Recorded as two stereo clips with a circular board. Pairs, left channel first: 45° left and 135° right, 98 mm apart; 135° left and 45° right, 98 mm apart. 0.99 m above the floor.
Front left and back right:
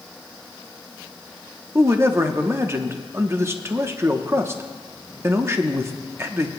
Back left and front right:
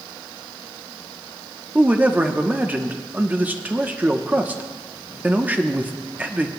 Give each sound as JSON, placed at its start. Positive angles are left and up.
{"t": 1.8, "sound": "a man speaking", "azimuth_deg": -100, "distance_m": 0.8}